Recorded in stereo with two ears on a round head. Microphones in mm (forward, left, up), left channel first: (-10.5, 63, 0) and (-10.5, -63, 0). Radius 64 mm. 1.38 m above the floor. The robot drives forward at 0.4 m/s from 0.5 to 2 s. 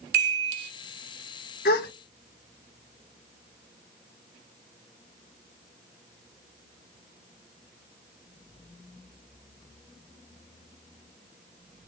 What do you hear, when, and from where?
0.1 s a chime: 75° right (ahead or behind), 1.1 m
1.6 s a gasp: 80° left, 0.9 m; by 1.9 s 75° left (ahead or behind), 0.9 m